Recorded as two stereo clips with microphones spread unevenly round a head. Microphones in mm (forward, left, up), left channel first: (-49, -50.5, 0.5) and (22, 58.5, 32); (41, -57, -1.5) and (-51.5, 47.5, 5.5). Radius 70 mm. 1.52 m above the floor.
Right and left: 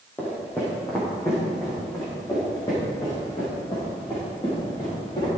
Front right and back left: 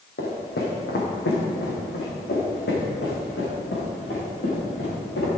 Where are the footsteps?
40° right, 4 m; by 5.3 s 65° right, 8.5 m.